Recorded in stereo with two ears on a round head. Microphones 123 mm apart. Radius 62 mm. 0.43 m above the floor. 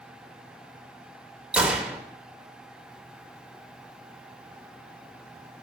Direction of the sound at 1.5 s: 10° right (ahead or behind).